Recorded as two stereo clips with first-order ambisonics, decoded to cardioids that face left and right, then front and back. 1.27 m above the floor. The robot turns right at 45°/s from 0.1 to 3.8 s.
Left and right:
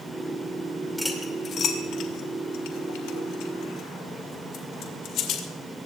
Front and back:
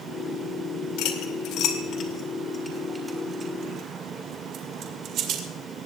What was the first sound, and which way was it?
Cutlery clinking, 5° left.